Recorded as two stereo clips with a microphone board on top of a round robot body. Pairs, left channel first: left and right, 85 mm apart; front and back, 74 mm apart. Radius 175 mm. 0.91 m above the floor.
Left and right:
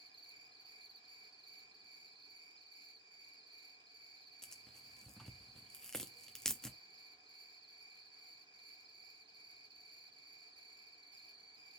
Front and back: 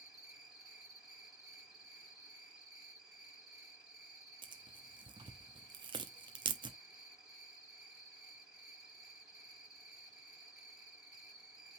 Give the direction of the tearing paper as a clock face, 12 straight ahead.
6 o'clock.